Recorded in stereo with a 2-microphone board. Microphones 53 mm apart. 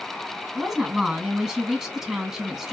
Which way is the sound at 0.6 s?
10° right (ahead or behind).